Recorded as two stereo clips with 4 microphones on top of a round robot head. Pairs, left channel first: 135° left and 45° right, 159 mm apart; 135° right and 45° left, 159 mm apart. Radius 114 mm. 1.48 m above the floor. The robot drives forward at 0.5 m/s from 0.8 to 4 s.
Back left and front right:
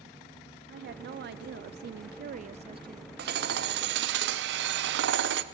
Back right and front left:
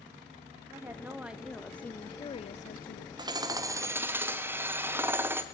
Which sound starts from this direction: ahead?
Hammering, at 3.2 s.